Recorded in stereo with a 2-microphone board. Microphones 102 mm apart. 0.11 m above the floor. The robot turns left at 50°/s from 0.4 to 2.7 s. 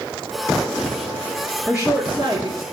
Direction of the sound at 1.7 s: 10° right.